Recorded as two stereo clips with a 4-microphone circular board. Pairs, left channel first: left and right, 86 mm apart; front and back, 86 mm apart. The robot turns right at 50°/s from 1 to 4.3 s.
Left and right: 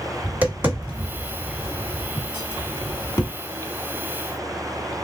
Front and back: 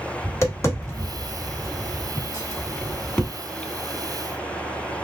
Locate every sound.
0.2 s tapping: 35° right, 1.6 m; by 3.3 s 80° left, 1.6 m